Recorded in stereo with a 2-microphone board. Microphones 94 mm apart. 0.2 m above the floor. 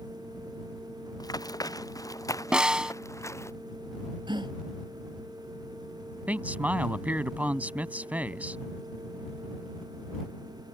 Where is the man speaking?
15° right (ahead or behind).